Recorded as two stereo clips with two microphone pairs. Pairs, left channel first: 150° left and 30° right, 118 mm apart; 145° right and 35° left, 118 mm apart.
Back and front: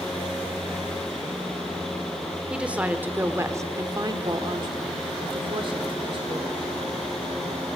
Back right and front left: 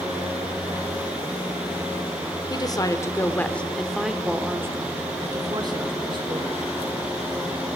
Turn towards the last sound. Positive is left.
turn(degrees=5)